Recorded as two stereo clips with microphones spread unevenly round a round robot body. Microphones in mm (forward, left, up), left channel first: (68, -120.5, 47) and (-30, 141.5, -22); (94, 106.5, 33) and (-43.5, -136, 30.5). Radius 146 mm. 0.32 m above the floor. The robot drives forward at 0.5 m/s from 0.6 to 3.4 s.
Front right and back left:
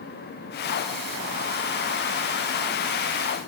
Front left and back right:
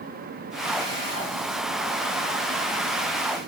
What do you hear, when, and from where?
Only background noise.